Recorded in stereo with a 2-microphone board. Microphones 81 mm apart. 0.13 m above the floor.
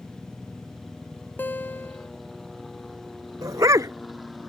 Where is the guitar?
25° left (ahead or behind).